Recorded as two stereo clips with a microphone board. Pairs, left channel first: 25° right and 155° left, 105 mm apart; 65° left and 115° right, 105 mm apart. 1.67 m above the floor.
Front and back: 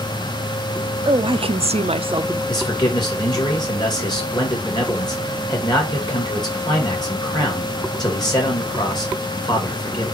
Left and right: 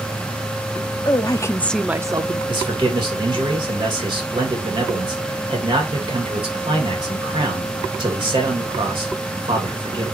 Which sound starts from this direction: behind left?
A woman speaking, at 1.1 s.